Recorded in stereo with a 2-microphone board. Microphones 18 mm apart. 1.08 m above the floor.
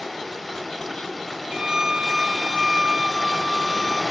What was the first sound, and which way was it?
Running water, 5° left (ahead or behind).